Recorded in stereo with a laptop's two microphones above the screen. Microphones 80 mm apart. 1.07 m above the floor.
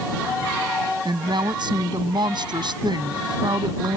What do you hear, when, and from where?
1.1 s a woman speaking: 70° right (ahead or behind)